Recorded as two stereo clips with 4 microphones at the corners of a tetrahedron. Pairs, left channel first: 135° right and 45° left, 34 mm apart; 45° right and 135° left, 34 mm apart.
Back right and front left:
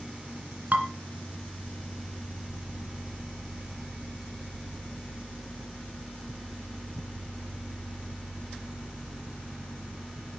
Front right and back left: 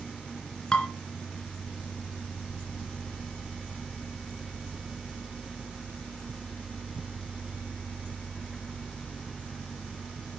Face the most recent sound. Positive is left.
turn(degrees=15)